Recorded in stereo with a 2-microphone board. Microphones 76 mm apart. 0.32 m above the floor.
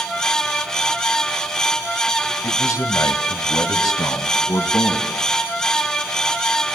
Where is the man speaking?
40° left (ahead or behind), 1.7 m; by 5.1 s 55° left (ahead or behind), 3 m.